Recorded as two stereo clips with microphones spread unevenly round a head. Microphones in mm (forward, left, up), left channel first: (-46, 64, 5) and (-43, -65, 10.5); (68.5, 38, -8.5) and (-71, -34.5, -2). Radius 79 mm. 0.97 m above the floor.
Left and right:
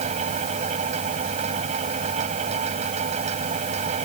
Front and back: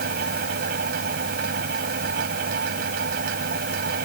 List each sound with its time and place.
0.0 s a fan: 120° right